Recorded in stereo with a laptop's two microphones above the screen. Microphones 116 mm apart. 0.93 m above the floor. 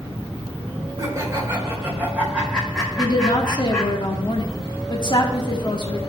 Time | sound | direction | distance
1.0 | laughter | 30° right (ahead or behind) | 3.5 m
3.0 | a woman speaking | 45° left (ahead or behind) | 1.8 m